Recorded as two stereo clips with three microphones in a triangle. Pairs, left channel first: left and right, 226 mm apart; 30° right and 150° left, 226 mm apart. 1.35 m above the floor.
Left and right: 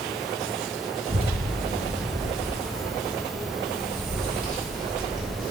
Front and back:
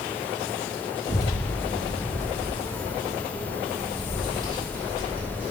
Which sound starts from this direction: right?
A child speaking, at 1.1 s.